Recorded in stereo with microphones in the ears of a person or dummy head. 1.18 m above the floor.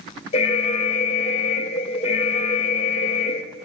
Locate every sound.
0.3 s an alarm: 40° left (ahead or behind), 1.0 m